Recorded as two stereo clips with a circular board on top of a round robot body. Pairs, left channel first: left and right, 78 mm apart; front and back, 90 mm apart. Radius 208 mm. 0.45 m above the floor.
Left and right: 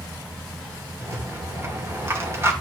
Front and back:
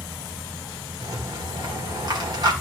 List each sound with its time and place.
1.0 s a rattle: 145° right, 2.5 m